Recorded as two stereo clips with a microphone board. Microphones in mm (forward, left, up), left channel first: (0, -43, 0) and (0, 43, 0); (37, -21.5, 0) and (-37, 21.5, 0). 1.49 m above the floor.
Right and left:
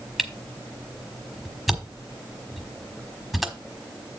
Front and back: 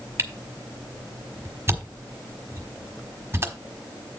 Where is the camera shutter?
Straight behind, 1.2 m.